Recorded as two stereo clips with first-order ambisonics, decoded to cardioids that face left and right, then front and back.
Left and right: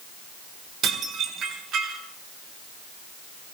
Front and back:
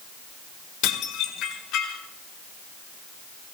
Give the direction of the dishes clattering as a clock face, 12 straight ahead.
1 o'clock.